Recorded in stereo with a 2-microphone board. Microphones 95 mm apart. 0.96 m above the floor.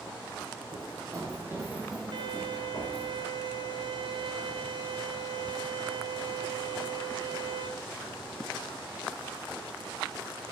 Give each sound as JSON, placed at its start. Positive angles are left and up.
{"t": 0.7, "sound": "running footsteps", "side_deg": -40, "distance_m": 1.8}
{"t": 2.1, "sound": "a violin", "side_deg": -55, "distance_m": 0.7}